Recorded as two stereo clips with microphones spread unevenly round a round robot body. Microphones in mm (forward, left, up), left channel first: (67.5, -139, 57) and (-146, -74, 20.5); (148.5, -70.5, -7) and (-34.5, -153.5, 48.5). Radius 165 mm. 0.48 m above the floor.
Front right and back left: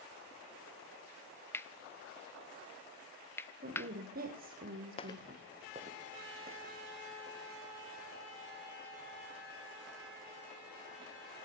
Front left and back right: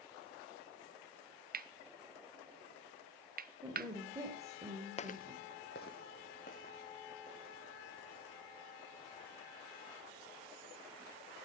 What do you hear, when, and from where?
1.5 s cutlery clinking: 100° right, 0.8 m
3.6 s a woman speaking: 120° left, 1.4 m
5.0 s footsteps: 40° right, 0.5 m; by 11.1 s 100° left, 6.5 m